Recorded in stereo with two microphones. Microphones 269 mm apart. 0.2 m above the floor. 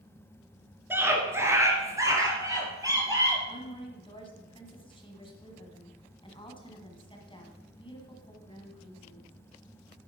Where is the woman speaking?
20° left (ahead or behind), 1.9 m.